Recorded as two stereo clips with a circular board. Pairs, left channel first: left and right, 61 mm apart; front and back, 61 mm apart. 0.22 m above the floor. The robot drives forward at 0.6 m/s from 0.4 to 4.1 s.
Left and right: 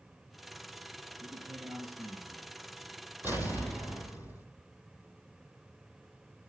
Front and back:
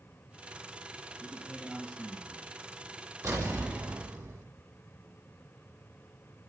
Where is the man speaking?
90° right, 3 m; by 2.5 s 105° right, 3 m.